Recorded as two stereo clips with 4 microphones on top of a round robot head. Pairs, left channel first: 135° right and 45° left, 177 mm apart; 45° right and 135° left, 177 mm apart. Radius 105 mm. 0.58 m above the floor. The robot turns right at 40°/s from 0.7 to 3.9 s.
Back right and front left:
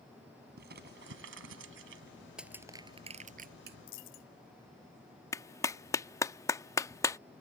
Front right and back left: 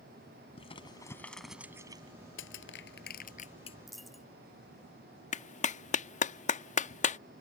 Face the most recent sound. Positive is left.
turn(degrees=-65)